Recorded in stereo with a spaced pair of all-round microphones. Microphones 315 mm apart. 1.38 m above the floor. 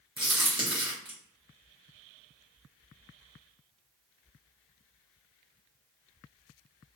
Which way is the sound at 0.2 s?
15° right (ahead or behind).